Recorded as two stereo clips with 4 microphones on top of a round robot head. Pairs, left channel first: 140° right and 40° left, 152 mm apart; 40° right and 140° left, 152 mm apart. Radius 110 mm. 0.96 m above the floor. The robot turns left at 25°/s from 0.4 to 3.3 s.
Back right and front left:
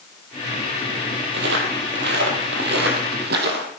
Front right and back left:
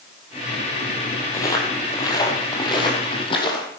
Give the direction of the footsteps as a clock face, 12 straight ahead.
11 o'clock.